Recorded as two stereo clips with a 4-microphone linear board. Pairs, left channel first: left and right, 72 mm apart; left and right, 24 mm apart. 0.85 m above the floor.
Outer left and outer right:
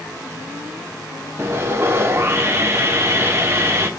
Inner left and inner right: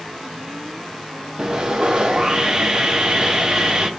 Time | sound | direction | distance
1.4 | sawing | 35° right (ahead or behind) | 0.9 m